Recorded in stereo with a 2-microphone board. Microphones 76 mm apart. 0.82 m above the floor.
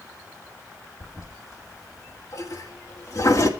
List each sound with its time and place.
1.0 s a toilet flushing: 55° left (ahead or behind), 2.0 m